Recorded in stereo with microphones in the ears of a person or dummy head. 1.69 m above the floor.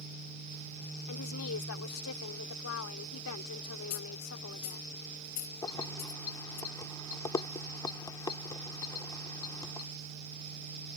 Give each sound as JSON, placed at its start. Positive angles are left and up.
{"t": 1.1, "sound": "a woman speaking", "side_deg": 70}
{"t": 3.9, "sound": "a dropped coin", "side_deg": 40}
{"t": 5.6, "sound": "keys jangling", "side_deg": 25}